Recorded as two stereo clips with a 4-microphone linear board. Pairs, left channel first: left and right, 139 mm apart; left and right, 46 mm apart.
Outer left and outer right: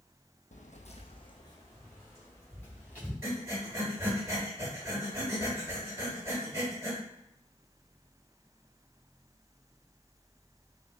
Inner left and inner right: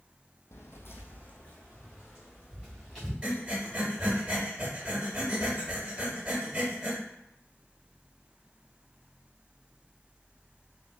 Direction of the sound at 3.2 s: 20° right (ahead or behind).